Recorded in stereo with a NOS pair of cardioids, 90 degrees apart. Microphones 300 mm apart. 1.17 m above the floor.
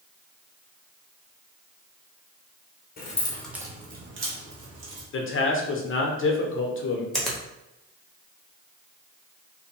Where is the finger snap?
Straight ahead, 0.9 m.